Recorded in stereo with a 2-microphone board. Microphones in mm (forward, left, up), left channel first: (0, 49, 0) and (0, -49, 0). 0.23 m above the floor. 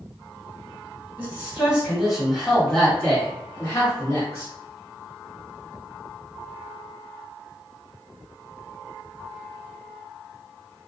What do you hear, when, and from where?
1.2 s a man speaking: 20° right (ahead or behind), 1.6 m; by 4.5 s 40° left (ahead or behind), 1.8 m